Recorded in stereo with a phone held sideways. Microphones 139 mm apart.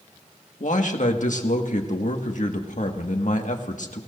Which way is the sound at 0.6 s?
65° left (ahead or behind).